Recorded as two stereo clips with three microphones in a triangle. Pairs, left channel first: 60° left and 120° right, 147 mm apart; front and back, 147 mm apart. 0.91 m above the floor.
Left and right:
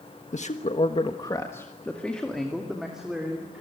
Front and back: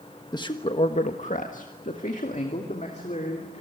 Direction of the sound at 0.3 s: 55° left.